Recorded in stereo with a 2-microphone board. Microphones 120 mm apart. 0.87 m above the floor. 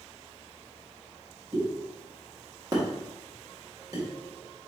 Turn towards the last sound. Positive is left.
turn(degrees=-30)  # may be behind; listen again after turning